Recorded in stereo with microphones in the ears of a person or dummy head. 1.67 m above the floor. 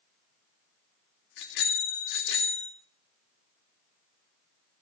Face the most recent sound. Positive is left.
turn(degrees=65)  # may be behind; listen again after turning